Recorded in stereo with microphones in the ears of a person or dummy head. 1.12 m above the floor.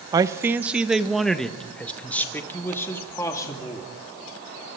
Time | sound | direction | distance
0.1 | a man speaking | 20° right (ahead or behind) | 1.0 m